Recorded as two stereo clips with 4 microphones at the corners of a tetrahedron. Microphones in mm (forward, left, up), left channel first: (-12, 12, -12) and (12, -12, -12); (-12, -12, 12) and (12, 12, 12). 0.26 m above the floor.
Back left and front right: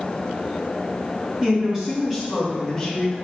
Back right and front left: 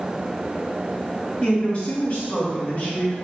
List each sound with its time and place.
1.4 s a woman speaking: 95° right, 1.6 m; by 3.1 s 150° right, 1.7 m